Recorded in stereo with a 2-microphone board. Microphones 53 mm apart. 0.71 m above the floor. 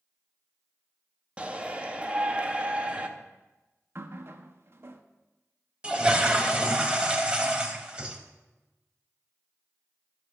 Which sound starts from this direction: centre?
A toilet flushing, at 5.8 s.